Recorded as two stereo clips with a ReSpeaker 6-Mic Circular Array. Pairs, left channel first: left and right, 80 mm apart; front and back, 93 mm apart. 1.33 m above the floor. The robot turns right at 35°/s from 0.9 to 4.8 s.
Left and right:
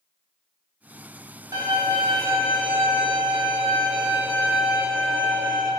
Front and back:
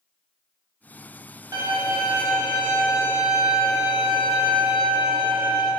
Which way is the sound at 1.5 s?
125° right.